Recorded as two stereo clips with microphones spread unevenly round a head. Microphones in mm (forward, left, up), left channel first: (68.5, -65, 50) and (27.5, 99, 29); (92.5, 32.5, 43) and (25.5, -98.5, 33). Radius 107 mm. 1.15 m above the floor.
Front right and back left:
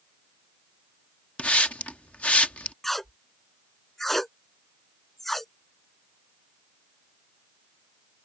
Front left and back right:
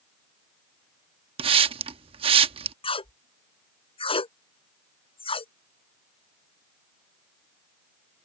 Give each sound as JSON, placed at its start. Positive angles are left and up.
{"t": 1.4, "sound": "a hiss", "azimuth_deg": -140}
{"t": 2.8, "sound": "tape being pulled", "azimuth_deg": 10}